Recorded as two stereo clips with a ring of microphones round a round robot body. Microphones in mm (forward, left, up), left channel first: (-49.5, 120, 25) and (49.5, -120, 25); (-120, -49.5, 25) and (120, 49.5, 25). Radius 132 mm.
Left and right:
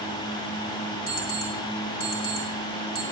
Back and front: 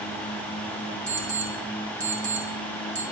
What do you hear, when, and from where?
1.1 s an alarm clock: 85° left, 3 m